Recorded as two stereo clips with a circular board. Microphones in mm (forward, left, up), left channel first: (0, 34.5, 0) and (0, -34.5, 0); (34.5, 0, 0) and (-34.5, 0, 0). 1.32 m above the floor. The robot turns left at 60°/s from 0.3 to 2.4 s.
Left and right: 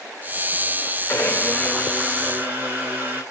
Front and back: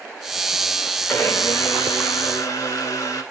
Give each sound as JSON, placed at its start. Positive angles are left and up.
{"t": 1.1, "sound": "a blender", "azimuth_deg": 50, "distance_m": 2.5}